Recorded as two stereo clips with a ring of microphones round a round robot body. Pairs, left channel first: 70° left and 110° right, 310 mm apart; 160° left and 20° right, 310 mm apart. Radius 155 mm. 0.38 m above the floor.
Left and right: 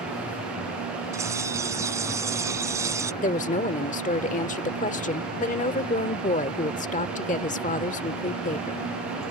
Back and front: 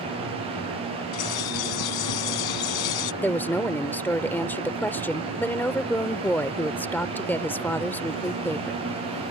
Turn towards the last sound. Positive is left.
turn(degrees=85)